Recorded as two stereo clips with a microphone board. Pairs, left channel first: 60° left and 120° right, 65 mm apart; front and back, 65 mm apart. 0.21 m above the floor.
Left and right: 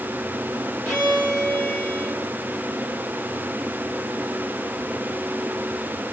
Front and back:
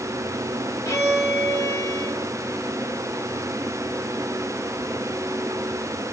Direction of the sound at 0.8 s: 20° right.